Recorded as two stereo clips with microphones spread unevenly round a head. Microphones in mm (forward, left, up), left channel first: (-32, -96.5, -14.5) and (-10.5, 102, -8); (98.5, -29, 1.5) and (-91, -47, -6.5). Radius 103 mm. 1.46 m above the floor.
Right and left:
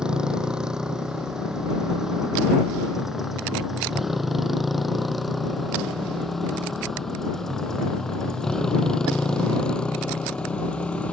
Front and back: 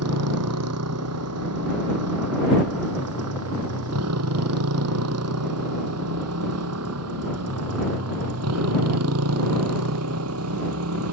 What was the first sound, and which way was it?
A motorcycle, 170° left.